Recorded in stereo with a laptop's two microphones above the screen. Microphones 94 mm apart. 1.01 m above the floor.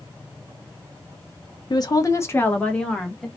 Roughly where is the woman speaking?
Left.